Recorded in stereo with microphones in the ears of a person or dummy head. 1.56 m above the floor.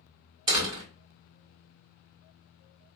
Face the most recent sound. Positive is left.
turn(degrees=-20)  # may be behind; listen again after turning